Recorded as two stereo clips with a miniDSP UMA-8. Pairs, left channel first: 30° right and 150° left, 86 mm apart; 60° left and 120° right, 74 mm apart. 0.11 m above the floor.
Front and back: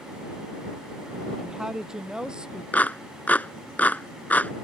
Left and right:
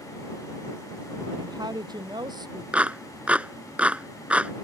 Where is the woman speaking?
125° right; by 2.6 s 130° right.